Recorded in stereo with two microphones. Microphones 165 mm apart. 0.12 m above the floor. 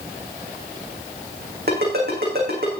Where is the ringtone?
65° right (ahead or behind), 4.5 m.